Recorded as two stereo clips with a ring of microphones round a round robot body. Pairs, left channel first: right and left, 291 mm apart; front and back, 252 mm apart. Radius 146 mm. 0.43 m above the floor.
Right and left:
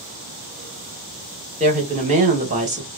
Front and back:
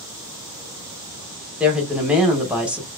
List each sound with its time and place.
1.6 s a woman speaking: 100° left, 1.0 m